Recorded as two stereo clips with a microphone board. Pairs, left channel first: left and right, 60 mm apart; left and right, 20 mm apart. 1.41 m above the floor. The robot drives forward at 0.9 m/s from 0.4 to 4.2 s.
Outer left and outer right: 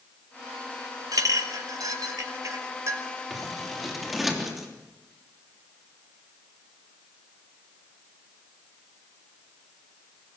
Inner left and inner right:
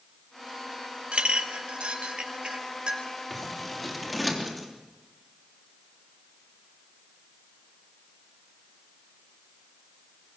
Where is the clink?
80° right, 2 m; by 3.0 s 55° right (ahead or behind), 2.5 m.